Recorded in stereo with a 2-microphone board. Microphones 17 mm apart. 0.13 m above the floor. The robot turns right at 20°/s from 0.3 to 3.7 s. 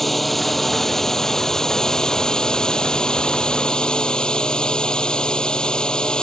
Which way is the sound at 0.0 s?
10° left.